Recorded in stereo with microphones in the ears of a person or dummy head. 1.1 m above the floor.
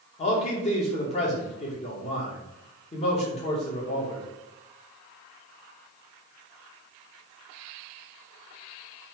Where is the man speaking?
35° left (ahead or behind), 1.4 m.